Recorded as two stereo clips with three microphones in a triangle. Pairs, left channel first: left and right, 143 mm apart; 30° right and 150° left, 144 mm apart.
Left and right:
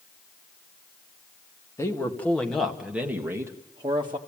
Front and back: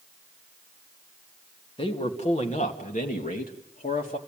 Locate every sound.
1.8 s a man speaking: 20° left, 2 m; by 4.2 s 35° right, 2 m